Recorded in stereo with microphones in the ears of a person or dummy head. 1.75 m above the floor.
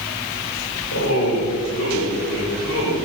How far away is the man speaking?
About 3 m.